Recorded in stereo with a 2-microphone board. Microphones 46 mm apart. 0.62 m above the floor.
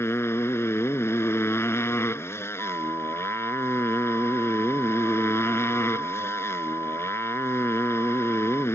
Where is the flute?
75° right (ahead or behind).